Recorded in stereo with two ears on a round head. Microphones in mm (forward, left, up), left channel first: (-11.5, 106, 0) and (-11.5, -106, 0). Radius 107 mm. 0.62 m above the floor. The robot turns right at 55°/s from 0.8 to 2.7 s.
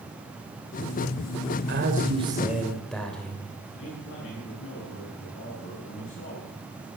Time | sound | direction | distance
1.7 | a man speaking | 55° right | 2.5 m
3.8 | a man speaking | 60° left (ahead or behind) | 8 m